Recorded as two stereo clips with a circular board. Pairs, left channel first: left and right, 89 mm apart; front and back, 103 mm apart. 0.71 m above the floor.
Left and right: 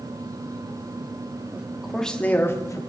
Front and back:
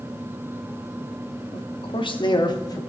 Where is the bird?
No bird in this recording.